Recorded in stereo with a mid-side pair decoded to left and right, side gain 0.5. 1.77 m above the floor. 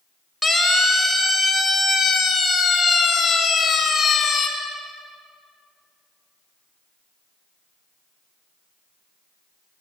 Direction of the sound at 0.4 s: 5° right.